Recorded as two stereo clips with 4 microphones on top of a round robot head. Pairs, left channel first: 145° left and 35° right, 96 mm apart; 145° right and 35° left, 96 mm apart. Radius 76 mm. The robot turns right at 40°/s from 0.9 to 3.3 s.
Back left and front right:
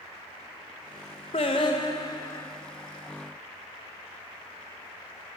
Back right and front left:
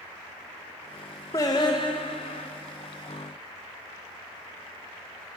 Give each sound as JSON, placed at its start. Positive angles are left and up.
{"t": 1.3, "sound": "singing", "azimuth_deg": 165, "distance_m": 0.8}